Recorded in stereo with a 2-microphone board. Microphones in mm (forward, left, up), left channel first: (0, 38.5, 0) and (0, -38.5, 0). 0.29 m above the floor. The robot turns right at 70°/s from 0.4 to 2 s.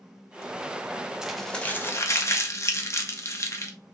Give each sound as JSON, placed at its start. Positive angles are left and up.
{"t": 1.2, "sound": "crumpling", "side_deg": -10, "distance_m": 0.6}